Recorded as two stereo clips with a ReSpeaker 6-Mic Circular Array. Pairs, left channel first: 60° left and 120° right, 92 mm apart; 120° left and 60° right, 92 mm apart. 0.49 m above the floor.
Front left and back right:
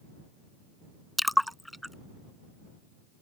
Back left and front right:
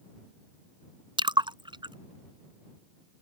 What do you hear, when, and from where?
1.2 s a splash: 30° right